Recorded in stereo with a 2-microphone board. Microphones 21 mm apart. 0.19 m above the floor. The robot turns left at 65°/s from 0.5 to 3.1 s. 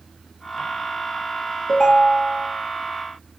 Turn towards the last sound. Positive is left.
turn(degrees=-30)